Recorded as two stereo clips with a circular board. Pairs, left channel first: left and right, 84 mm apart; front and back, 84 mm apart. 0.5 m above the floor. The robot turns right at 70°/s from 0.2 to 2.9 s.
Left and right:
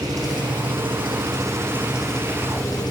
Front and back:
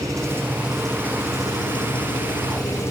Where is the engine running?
130° right, 7.5 m; by 2.9 s 55° left, 7.5 m.